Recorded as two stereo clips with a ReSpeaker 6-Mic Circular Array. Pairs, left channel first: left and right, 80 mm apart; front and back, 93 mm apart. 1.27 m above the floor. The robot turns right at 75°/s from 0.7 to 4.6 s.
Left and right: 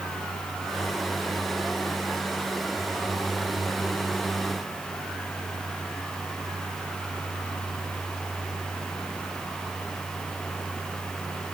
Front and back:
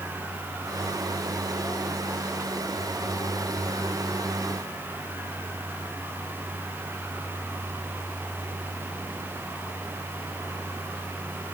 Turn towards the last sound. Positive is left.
No sound to turn to.